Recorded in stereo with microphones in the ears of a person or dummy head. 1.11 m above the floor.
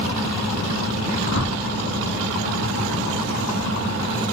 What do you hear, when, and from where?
1.2 s a whoosh: 75° left (ahead or behind), 4.5 m